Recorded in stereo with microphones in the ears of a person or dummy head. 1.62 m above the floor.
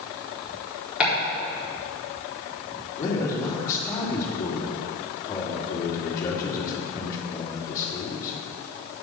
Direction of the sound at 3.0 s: 20° left (ahead or behind).